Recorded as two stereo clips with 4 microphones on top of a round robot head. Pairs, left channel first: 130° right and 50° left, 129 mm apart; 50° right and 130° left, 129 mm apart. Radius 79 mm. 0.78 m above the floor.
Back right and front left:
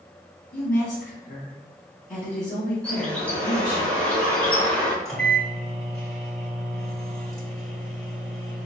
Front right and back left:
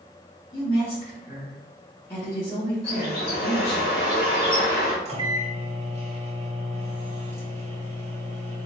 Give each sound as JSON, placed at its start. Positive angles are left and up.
{"t": 0.5, "sound": "a woman speaking", "azimuth_deg": -110, "distance_m": 1.7}
{"t": 2.8, "sound": "a bird", "azimuth_deg": -50, "distance_m": 1.0}
{"t": 5.0, "sound": "a microwave", "azimuth_deg": 140, "distance_m": 1.1}